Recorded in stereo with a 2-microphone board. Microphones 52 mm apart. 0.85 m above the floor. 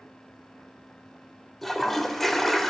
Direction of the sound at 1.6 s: 5° left (ahead or behind).